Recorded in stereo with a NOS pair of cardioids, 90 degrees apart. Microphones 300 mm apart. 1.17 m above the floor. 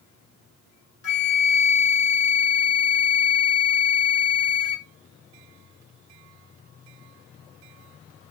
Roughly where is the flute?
Ahead left.